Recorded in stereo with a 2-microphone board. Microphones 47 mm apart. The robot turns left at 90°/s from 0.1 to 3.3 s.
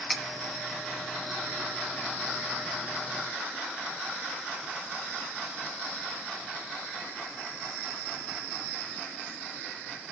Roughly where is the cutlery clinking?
Centre.